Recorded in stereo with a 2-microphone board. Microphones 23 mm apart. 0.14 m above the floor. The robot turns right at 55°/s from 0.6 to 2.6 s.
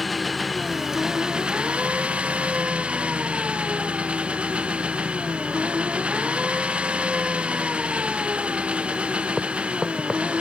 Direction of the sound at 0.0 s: Straight behind.